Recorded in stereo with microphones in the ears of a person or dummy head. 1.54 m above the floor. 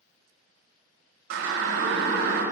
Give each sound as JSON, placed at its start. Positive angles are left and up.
{"t": 1.3, "sound": "a siren", "side_deg": -85, "distance_m": 5.5}